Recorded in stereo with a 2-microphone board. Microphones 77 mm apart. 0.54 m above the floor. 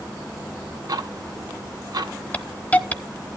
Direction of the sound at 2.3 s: 20° left (ahead or behind).